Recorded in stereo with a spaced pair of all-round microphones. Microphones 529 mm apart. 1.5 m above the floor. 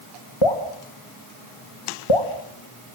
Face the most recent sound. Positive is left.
turn(degrees=65)  # may be behind; listen again after turning